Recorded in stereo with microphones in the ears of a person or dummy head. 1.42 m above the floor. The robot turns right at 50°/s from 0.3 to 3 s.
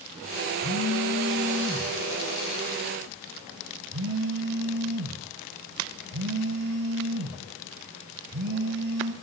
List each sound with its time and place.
0.6 s a phone buzzing: 125° left, 5 m; by 9.1 s 115° right, 5 m